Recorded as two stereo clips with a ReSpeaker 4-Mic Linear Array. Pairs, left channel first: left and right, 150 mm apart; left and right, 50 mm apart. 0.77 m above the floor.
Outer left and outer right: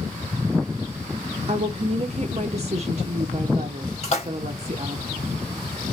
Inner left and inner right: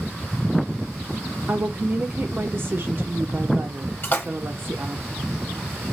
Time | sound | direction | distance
1.5 | a woman speaking | 45° right (ahead or behind) | 0.6 m
4.0 | a splash | 50° left (ahead or behind) | 1.2 m